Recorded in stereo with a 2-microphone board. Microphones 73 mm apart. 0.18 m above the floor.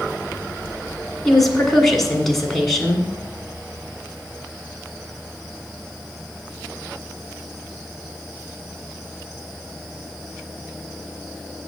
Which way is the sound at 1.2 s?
5° left (ahead or behind).